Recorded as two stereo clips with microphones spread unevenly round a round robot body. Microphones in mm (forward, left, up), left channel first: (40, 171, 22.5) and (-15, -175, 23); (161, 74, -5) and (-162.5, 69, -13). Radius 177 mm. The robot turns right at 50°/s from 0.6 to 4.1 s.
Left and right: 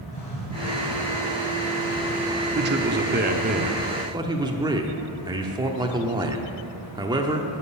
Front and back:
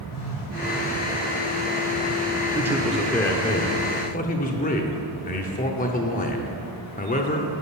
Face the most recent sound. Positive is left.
turn(degrees=-35)